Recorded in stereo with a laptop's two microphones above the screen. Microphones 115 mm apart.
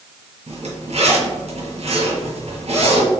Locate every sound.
0.5 s a zipper: 60° right (ahead or behind), 1.5 m